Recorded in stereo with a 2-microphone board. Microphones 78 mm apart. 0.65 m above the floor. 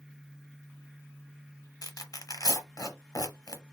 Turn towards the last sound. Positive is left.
turn(degrees=50)  # may be behind; listen again after turning